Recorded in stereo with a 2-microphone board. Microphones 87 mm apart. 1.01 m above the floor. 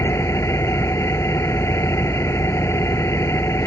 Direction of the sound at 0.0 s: 35° left (ahead or behind).